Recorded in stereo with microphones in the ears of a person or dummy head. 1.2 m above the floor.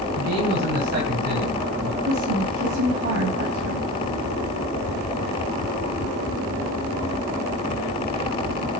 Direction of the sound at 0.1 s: 45° right (ahead or behind).